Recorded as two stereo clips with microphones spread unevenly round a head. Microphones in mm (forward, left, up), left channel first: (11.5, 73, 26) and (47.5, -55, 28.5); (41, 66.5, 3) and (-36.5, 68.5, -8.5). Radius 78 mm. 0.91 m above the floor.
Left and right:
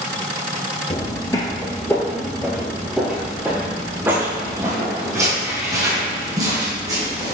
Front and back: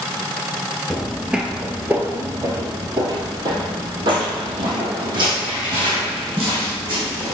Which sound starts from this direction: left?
Footsteps, at 0.9 s.